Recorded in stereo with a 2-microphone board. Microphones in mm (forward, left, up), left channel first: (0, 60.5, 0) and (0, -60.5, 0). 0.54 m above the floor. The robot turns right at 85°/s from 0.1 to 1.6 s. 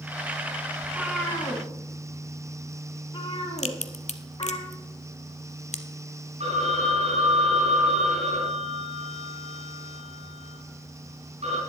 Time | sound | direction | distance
0.8 | a cat meowing | 25° right (ahead or behind) | 3 m
3.6 | a crack | 70° left (ahead or behind) | 0.8 m
6.4 | a phone ringing | 60° right (ahead or behind) | 3.5 m